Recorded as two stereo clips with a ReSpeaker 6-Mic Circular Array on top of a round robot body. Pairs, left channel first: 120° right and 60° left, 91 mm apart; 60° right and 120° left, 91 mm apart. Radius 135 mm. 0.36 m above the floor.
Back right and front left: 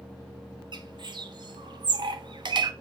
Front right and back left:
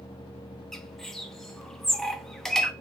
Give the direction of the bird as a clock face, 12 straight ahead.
11 o'clock.